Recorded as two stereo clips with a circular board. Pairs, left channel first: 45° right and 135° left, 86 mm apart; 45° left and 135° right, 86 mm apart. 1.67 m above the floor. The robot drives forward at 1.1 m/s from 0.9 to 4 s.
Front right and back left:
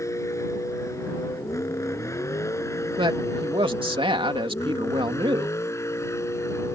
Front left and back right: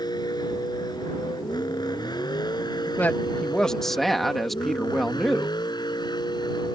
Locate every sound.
0.0 s a vehicle: 10° left; by 6.8 s 15° left
3.0 s a man speaking: 115° left; by 5.5 s 135° left